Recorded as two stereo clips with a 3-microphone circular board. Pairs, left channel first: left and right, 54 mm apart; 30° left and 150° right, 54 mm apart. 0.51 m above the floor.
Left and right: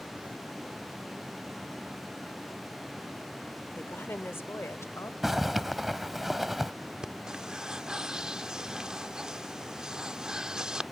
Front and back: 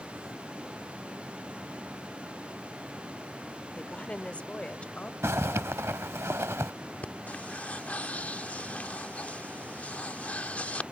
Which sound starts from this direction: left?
A woman speaking, at 3.8 s.